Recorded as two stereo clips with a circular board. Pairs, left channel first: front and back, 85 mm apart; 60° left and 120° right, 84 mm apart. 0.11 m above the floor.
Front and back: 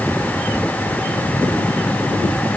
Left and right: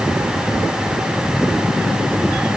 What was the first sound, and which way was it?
Only background noise.